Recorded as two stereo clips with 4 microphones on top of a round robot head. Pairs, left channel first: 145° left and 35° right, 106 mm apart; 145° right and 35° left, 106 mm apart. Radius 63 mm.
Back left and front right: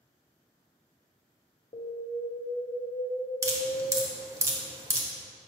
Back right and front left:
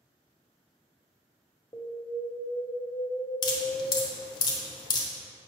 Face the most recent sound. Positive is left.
turn(degrees=-95)